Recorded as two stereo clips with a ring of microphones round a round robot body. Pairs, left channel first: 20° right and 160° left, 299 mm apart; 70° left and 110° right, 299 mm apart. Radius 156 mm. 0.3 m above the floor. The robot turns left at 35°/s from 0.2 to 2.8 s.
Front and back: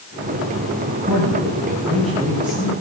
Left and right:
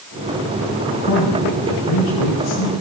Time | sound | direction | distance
0.9 | a man speaking | 110° left | 7 m